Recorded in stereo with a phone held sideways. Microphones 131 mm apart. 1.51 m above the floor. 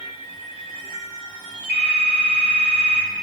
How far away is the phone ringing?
About 3 m.